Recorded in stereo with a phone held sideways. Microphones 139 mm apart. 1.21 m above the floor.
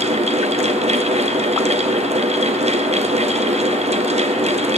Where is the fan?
55° right (ahead or behind), 0.8 m.